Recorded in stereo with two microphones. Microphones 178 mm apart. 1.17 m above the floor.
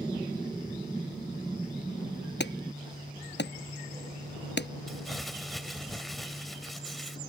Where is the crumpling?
Centre (ahead or behind).